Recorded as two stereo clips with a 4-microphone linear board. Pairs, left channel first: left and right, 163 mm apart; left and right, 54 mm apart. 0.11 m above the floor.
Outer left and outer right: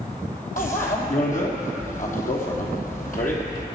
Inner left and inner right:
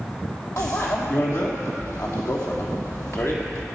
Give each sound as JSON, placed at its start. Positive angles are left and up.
{"t": 0.6, "sound": "a bicycle bell", "side_deg": 55, "distance_m": 2.5}